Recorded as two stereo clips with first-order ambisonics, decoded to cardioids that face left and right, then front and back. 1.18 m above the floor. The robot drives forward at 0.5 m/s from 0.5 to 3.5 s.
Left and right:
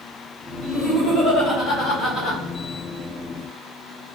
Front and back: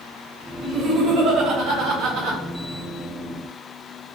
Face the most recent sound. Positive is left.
turn(degrees=160)